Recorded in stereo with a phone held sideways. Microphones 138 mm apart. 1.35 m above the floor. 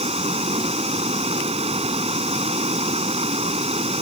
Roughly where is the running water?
Right.